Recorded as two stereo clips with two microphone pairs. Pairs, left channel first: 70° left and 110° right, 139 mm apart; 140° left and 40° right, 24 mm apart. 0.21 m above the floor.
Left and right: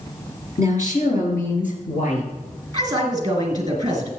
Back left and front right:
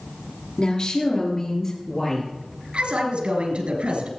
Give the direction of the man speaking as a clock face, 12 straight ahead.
2 o'clock.